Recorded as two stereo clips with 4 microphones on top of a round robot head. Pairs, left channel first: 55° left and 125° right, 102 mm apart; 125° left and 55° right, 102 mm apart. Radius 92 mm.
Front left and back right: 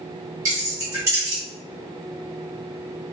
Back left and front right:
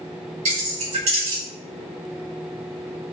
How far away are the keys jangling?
About 1.5 m.